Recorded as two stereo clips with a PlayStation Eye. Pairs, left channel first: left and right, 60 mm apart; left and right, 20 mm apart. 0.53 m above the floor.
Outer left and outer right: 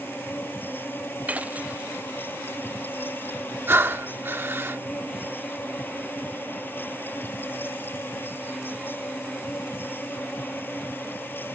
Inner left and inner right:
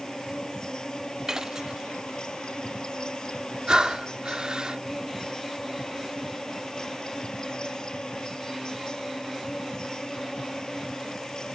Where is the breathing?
40° right (ahead or behind).